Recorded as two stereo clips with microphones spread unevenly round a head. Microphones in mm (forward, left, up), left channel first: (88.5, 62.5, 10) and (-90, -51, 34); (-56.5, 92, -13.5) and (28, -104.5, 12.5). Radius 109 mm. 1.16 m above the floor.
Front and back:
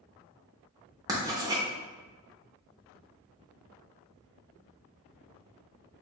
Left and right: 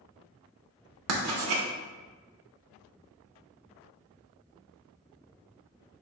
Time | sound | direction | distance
1.1 | writing | 75° right | 0.9 m